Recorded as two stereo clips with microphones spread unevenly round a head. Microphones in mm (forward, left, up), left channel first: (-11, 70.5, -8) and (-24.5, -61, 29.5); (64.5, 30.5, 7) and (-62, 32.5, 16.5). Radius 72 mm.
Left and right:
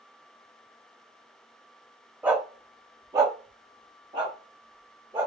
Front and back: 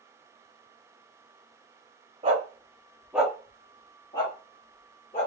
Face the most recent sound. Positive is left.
turn(degrees=-45)